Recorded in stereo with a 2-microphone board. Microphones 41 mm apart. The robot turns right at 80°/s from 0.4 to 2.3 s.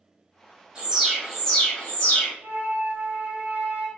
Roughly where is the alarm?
Ahead right.